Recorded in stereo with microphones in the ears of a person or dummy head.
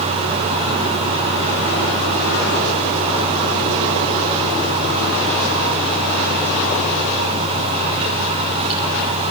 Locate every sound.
0.0 s a fan: 35° right (ahead or behind), 5.5 m